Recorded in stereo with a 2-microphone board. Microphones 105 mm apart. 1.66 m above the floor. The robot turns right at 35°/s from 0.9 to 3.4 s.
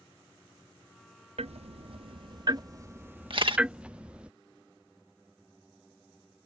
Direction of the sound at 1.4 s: 80° right.